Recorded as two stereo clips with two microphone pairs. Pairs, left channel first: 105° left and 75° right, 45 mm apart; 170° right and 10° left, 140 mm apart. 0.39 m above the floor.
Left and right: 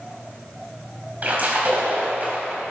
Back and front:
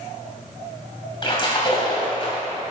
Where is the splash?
120° right, 3 m.